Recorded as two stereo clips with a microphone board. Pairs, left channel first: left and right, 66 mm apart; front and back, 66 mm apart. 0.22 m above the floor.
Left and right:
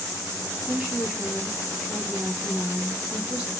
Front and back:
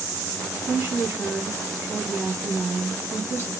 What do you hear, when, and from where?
0.7 s a woman speaking: 150° right, 1.7 m